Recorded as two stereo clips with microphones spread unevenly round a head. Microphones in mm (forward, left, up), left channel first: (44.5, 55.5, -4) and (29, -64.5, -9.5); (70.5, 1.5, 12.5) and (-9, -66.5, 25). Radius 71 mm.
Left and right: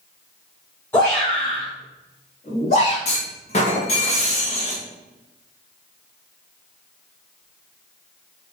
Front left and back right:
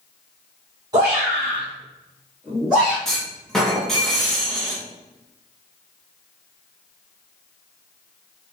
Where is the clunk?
120° left, 1.2 m.